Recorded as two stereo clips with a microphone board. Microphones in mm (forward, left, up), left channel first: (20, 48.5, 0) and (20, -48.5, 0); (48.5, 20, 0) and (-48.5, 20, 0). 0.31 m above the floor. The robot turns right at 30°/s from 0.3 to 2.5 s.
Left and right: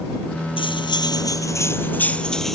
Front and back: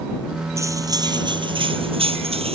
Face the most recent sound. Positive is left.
turn(degrees=180)